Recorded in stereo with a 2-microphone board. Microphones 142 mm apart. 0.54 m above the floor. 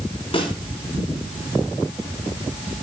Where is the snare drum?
40° left (ahead or behind), 4 m.